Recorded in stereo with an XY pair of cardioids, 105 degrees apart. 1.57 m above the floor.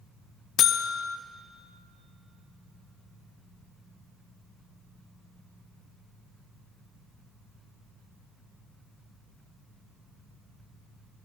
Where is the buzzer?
65° left, 0.7 m.